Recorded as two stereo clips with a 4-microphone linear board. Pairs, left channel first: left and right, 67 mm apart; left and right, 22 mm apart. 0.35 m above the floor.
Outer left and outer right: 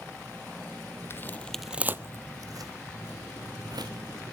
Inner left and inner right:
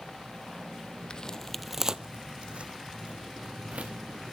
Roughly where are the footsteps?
Left.